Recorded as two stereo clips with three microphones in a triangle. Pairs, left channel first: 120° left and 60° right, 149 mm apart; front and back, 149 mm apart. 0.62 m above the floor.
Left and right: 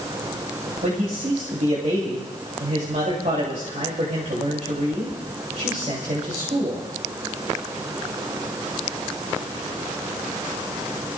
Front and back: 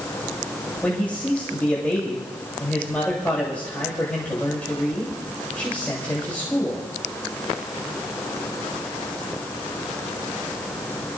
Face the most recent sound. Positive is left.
turn(degrees=-80)